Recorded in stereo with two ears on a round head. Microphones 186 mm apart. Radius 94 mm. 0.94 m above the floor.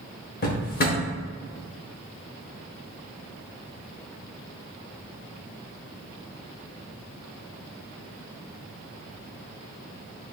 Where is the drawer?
45° left (ahead or behind), 0.9 m.